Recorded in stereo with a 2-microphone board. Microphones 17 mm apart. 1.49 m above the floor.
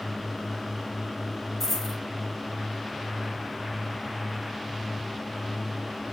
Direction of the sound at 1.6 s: 10° left (ahead or behind).